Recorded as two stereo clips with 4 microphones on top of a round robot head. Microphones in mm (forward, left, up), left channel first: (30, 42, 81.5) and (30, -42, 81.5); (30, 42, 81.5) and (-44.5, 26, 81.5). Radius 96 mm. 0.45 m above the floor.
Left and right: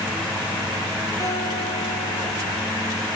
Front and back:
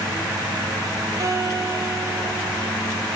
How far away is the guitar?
About 6.5 m.